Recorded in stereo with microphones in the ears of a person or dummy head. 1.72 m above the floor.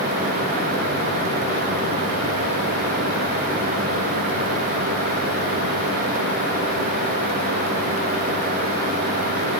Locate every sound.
Only background noise.